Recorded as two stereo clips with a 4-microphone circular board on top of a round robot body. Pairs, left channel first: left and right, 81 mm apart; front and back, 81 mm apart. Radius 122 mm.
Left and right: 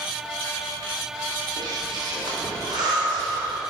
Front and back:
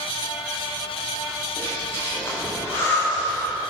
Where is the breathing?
60° right, 3 m.